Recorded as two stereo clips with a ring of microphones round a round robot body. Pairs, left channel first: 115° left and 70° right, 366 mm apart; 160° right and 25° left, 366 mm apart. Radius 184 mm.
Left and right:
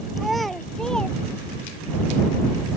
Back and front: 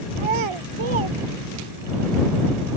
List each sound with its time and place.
0.2 s a child speaking: 20° left; by 1.9 s 25° left